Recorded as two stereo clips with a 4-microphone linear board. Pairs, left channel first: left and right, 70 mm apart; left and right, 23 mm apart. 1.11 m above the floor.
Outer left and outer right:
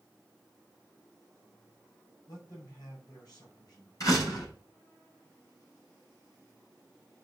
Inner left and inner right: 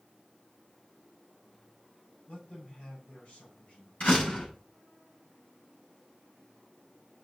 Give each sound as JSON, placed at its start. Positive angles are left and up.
{"t": 2.3, "sound": "a man speaking", "side_deg": 60, "distance_m": 5.0}
{"t": 4.0, "sound": "a door slam", "side_deg": 50, "distance_m": 6.0}